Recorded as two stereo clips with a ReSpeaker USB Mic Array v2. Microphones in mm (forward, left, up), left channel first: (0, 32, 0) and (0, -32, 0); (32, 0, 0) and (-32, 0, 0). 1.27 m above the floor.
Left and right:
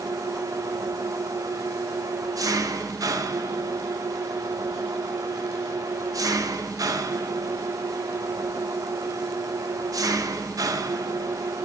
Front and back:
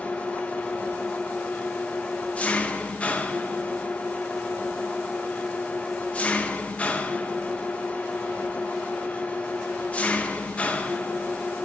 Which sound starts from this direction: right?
An engine running, at 0.0 s.